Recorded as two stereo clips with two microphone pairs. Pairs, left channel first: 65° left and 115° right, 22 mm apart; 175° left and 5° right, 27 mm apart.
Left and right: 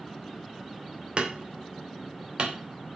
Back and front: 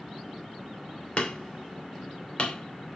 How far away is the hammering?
About 2.5 m.